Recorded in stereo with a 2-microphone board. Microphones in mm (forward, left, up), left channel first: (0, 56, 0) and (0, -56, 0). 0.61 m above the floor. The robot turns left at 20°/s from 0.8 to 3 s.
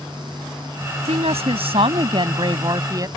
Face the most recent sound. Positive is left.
turn(degrees=-145)